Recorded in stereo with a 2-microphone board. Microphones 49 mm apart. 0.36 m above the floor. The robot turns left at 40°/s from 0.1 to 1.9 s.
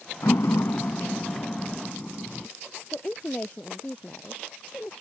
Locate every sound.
0.2 s a door slam: 90° left; by 2.5 s 20° left
2.9 s a woman speaking: 30° left (ahead or behind)